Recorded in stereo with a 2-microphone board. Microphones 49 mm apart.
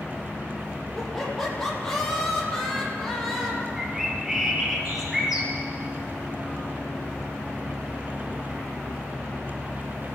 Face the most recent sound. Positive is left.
turn(degrees=-5)  # may be behind; listen again after turning